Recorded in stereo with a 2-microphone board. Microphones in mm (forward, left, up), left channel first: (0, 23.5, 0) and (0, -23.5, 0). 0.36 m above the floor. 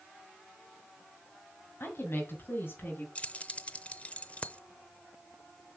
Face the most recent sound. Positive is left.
turn(degrees=30)  # may be behind; listen again after turning